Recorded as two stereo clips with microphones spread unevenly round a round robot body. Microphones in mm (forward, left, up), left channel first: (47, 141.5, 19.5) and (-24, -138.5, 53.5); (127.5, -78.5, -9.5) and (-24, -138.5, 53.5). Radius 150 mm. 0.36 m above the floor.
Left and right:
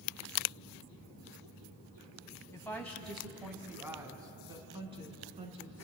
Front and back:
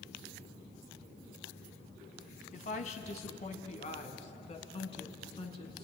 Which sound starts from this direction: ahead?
A woman speaking, at 2.5 s.